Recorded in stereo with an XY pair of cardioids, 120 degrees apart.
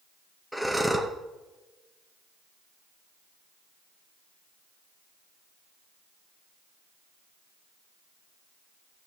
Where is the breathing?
Straight ahead, 1.7 m.